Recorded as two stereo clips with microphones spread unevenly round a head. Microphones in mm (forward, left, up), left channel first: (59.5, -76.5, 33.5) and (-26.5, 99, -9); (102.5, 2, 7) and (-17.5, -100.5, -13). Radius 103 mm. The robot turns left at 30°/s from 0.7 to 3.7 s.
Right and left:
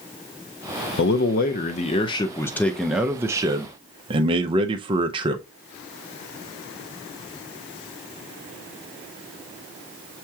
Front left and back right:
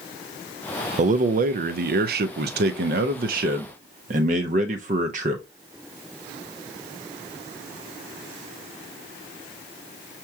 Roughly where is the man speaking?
Right.